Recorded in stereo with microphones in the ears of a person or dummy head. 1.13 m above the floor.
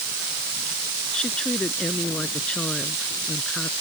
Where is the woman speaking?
5° left (ahead or behind).